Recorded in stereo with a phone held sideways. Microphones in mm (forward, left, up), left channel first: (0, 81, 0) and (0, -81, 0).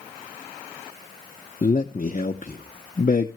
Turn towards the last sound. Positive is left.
turn(degrees=60)  # may be behind; listen again after turning